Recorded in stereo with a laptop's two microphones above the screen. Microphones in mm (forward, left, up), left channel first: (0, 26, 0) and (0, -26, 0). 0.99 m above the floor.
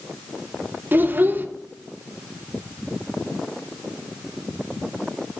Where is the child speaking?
35° right (ahead or behind), 0.7 m.